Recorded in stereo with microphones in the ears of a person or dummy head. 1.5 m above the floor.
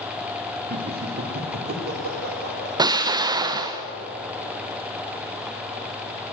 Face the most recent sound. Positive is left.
turn(degrees=-20)  # may be behind; listen again after turning